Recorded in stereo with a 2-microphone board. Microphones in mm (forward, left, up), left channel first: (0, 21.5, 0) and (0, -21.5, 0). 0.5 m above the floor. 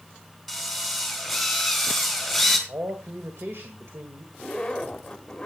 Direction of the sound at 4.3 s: 15° left (ahead or behind).